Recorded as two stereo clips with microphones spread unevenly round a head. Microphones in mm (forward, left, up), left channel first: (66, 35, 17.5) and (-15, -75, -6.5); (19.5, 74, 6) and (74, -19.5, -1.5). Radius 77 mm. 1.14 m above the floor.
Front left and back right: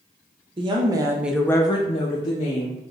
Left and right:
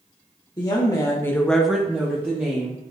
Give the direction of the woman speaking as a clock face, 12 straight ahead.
6 o'clock.